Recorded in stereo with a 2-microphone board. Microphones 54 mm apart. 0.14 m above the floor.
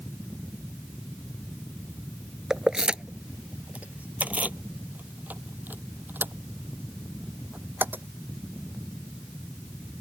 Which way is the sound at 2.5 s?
10° right (ahead or behind).